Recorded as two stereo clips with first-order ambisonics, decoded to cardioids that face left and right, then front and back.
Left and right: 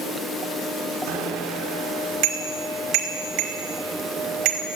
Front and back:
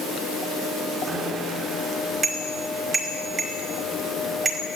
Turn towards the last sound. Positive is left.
turn(degrees=-110)